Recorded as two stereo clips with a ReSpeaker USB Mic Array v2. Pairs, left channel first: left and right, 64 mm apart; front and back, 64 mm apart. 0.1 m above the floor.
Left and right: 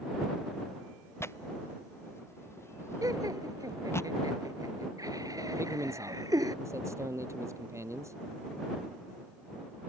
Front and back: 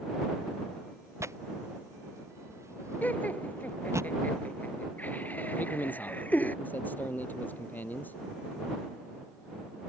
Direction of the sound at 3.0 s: 65° right.